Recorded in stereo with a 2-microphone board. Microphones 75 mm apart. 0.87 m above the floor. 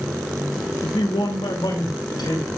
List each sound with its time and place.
0.8 s a man speaking: 80° left, 1.3 m; by 2.5 s 85° left, 4 m